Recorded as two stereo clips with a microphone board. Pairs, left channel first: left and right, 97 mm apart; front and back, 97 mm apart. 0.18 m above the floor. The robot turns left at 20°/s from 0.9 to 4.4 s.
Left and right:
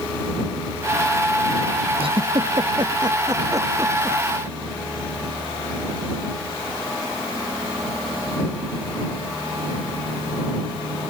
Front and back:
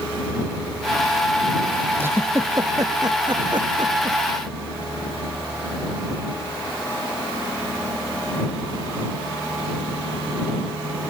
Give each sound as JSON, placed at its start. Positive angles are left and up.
{"t": 2.0, "sound": "a giggle", "azimuth_deg": -110}